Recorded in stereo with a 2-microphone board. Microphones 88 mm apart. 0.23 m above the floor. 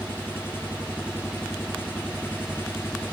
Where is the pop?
I don't hear a pop.